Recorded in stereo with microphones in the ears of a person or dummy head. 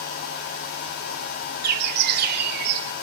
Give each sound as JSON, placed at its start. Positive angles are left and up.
{"t": 1.6, "sound": "a bird", "side_deg": -55, "distance_m": 2.5}